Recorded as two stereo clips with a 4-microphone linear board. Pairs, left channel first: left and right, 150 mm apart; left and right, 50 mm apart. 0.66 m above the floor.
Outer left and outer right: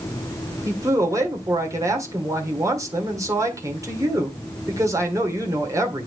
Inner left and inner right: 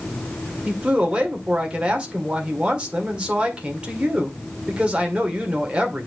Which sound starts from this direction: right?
A man speaking, at 0.7 s.